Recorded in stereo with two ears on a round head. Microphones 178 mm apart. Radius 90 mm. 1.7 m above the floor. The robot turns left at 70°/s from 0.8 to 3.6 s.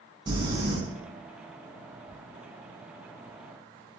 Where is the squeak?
40° left (ahead or behind), 1.9 m; by 2.2 s 50° left (ahead or behind), 1.9 m.